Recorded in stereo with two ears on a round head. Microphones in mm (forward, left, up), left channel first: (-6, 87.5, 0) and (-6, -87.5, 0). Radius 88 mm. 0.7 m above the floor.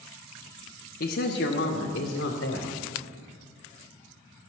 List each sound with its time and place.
1.0 s a man speaking: 50° left (ahead or behind), 0.9 m; by 2.8 s 70° left (ahead or behind), 2.5 m